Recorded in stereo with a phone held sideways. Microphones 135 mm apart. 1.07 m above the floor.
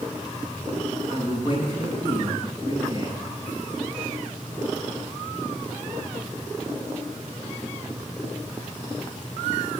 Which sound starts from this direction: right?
A man speaking, at 1.1 s.